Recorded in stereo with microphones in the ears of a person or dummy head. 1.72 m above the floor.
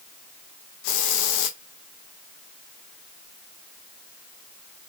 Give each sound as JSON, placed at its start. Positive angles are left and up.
{"t": 0.8, "sound": "a hiss", "side_deg": 65, "distance_m": 0.6}